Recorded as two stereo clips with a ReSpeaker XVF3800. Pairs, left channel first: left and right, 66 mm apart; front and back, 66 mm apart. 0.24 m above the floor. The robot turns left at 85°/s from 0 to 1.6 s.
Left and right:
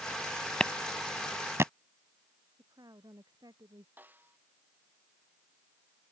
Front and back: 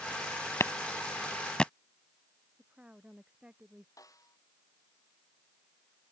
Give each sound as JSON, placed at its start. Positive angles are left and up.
{"t": 0.6, "sound": "a clap", "azimuth_deg": 15}
{"t": 2.6, "sound": "a woman speaking", "azimuth_deg": -105}
{"t": 4.0, "sound": "a snare drum", "azimuth_deg": -30}